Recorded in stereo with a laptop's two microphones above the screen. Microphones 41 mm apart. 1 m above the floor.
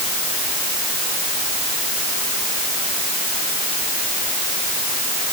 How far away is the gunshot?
No gunshot in this recording.